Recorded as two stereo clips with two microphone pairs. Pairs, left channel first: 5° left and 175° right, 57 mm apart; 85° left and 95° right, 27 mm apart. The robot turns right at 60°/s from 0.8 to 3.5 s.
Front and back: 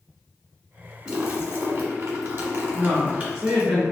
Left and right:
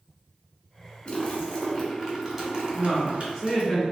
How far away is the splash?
About 1.0 m.